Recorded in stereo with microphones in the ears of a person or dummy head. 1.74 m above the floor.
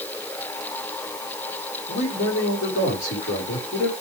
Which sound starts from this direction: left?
A man speaking, at 1.9 s.